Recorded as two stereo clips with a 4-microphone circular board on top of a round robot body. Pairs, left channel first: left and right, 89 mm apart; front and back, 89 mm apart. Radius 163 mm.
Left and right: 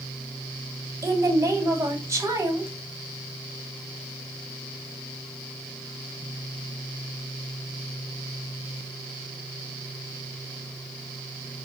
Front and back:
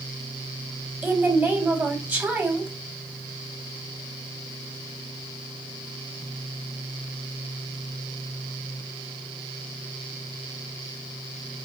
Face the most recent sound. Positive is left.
turn(degrees=-125)